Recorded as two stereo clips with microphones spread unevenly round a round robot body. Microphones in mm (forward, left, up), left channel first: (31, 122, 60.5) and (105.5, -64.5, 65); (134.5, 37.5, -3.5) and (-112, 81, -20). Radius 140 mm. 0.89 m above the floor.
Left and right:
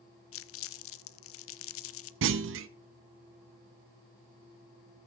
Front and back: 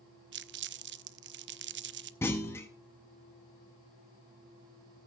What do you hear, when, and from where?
0.3 s crumpling: 120° left, 0.5 m
2.2 s a clunk: 95° right, 0.6 m